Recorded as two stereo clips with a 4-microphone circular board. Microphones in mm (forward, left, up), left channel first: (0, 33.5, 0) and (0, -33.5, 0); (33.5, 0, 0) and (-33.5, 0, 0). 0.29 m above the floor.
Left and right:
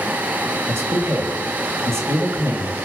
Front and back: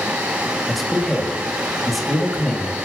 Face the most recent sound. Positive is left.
turn(degrees=-90)